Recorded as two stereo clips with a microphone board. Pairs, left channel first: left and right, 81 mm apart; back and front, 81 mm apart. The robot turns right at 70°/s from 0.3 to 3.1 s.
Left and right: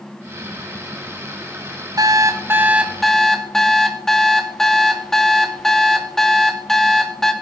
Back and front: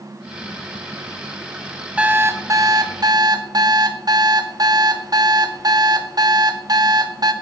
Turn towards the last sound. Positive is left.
turn(degrees=5)